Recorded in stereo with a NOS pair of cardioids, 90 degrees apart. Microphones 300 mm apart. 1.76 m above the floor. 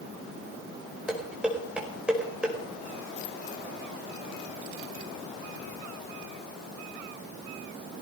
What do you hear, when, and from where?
1.1 s dishes clattering: 5° right, 5 m